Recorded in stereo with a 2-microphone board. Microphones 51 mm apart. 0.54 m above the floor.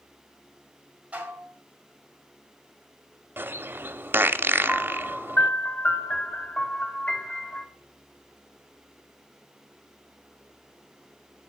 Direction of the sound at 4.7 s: 35° left (ahead or behind).